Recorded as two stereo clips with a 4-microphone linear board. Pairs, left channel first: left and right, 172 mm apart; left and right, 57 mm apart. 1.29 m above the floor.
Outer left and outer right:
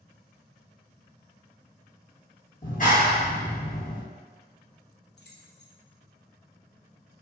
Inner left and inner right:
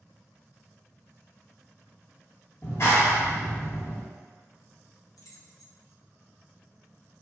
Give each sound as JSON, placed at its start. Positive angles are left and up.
{"t": 2.6, "sound": "a clap", "side_deg": 55, "distance_m": 1.0}
{"t": 5.2, "sound": "keys jangling", "side_deg": 80, "distance_m": 0.6}